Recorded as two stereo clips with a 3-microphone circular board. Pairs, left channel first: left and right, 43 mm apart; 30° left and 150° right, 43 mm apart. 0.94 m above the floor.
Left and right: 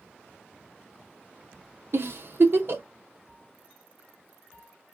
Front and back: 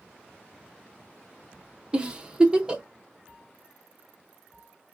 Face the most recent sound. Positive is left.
turn(degrees=-85)